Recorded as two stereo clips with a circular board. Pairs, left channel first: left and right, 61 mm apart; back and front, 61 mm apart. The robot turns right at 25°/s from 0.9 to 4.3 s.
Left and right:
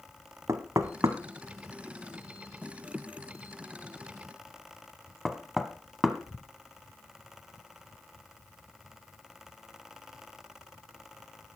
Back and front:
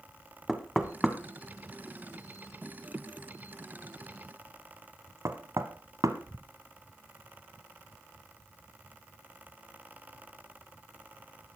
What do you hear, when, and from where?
0.5 s knocking: 85° right, 1.1 m; by 6.5 s straight ahead, 1.1 m